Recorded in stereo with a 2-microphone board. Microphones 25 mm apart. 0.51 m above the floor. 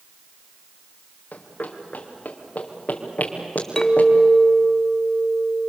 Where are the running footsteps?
80° left, 3.5 m; by 4.1 s 65° left (ahead or behind), 4.5 m.